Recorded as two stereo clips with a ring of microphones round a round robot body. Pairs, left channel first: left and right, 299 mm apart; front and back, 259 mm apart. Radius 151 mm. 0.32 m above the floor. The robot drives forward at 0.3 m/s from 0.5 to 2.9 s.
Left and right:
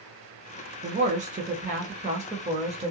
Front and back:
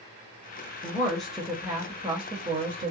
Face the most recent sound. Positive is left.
turn(degrees=-145)